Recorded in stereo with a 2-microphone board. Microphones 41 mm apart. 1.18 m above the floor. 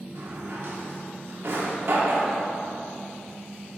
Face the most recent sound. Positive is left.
turn(degrees=-65)  # may be behind; listen again after turning